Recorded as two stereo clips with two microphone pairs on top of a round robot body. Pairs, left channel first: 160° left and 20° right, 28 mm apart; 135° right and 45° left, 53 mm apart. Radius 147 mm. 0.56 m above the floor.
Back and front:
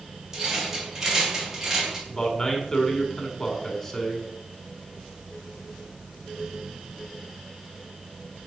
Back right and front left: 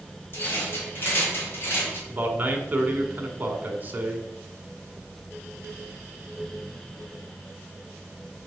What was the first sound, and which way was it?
A rattle, 90° right.